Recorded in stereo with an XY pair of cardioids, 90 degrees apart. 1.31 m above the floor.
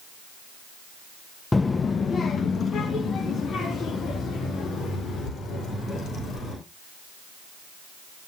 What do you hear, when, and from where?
1.5 s a child speaking: 25° left, 0.5 m; by 6.5 s 75° left, 5 m